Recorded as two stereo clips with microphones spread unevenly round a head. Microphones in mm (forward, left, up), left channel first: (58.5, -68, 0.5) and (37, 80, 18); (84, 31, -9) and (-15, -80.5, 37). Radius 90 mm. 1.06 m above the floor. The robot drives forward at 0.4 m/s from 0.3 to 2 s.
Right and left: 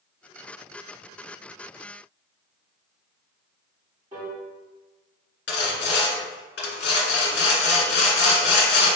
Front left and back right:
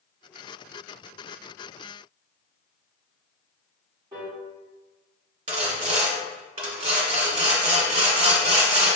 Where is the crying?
No crying in this recording.